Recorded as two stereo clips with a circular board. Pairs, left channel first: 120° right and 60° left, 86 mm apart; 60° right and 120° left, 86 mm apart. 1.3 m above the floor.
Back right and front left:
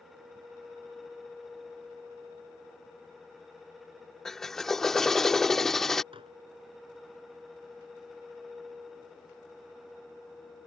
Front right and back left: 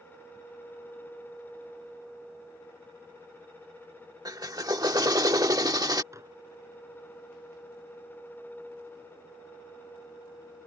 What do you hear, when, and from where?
4.2 s a drill: 155° left
6.1 s dishes clattering: 65° left